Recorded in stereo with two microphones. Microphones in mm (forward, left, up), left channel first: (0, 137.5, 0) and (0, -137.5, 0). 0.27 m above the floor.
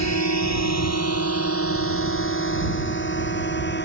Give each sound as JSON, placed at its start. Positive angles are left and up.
{"t": 0.0, "sound": "a drone", "side_deg": 75}